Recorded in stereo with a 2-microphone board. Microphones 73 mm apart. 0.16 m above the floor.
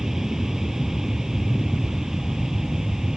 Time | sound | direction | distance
0.0 | an aircraft | 5° right (ahead or behind) | ?